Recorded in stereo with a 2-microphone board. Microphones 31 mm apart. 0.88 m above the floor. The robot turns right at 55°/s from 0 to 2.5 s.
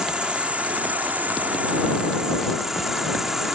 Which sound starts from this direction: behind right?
An insect, at 0.0 s.